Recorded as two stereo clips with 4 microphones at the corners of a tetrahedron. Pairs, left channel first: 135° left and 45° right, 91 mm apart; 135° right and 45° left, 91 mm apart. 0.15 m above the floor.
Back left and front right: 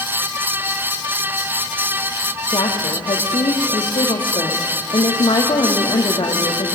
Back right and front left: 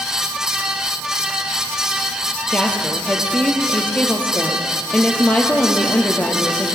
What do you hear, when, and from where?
2.5 s a woman speaking: 150° left, 4.5 m